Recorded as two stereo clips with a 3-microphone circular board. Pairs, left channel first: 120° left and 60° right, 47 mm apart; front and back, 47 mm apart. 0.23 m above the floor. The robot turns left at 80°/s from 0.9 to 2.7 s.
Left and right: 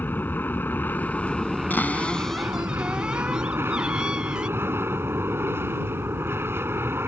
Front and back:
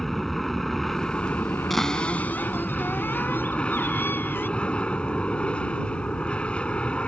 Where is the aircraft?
85° left; by 7.1 s 60° right.